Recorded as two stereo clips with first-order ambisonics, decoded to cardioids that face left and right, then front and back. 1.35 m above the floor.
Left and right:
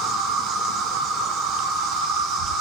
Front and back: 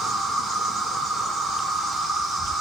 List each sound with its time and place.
0.0 s an insect: 95° right, 0.7 m